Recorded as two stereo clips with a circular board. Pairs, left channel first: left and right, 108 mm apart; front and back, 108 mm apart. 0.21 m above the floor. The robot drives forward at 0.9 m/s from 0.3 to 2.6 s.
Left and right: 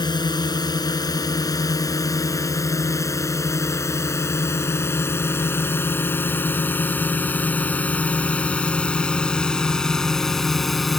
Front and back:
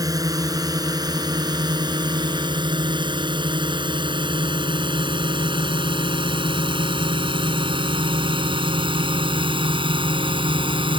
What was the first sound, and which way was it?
A drone, 130° left.